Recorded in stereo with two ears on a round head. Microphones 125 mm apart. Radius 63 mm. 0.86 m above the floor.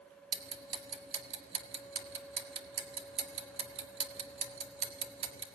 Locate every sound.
0.3 s ticking: 45° right (ahead or behind), 1.8 m